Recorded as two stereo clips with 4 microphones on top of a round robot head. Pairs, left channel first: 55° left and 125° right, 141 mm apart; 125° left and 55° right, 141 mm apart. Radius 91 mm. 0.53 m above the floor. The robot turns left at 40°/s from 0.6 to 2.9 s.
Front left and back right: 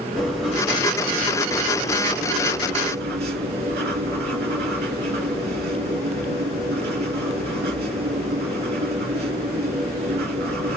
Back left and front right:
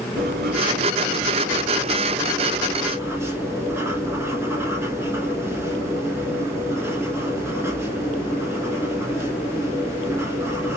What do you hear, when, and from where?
0.2 s writing: 35° right, 1.9 m; by 10.8 s 125° right, 1.9 m